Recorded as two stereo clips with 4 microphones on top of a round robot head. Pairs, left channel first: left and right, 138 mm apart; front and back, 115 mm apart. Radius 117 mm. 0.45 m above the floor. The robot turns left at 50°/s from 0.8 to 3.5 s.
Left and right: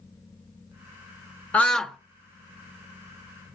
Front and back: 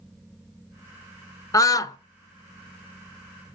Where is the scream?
20° left, 0.8 m; by 2.0 s straight ahead, 0.8 m.